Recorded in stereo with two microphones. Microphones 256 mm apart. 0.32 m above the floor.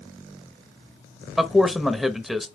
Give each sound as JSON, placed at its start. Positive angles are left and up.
{"t": 1.4, "sound": "a man speaking", "side_deg": 0, "distance_m": 0.9}